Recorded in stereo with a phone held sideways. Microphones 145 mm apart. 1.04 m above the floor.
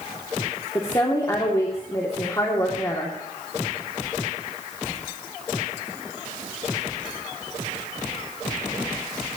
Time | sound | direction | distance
0.8 | a woman speaking | 25° left (ahead or behind) | 2.5 m